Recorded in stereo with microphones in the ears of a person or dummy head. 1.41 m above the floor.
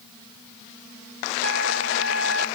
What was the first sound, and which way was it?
A trumpet, 80° right.